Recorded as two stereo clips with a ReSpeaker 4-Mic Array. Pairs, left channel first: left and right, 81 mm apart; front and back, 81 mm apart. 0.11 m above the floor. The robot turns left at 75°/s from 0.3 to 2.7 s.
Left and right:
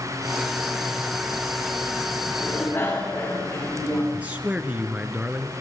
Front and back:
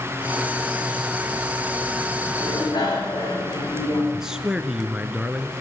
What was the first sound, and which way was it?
A bicycle bell, 45° left.